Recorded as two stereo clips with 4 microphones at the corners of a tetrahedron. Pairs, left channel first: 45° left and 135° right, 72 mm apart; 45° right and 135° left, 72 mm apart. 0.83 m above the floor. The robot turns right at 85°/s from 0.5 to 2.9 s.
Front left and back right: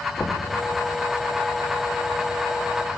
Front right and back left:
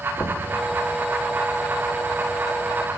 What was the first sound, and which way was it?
Knocking, 15° right.